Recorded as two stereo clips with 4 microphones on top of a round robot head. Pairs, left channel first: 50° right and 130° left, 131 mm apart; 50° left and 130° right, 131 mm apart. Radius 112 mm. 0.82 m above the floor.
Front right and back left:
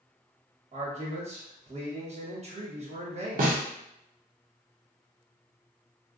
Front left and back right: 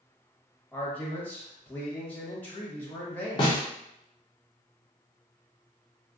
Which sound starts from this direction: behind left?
A man speaking, at 0.7 s.